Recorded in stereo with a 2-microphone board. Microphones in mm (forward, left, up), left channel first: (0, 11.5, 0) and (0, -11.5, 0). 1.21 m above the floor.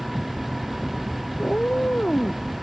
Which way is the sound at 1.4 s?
75° left (ahead or behind).